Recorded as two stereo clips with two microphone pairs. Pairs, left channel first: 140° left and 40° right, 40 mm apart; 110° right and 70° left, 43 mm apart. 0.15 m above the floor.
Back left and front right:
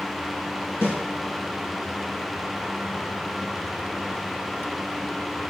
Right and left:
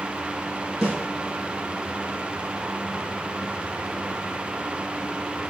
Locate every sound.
0.8 s a snare drum: 160° left, 3.5 m